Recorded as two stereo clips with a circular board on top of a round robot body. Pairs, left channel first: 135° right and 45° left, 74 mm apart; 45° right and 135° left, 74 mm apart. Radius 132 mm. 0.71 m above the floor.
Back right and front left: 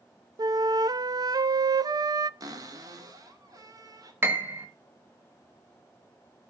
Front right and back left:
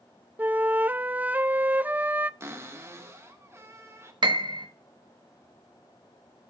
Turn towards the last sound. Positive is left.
turn(degrees=105)